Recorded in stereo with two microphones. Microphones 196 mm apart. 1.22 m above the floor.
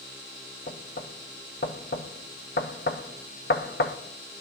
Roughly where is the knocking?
Left.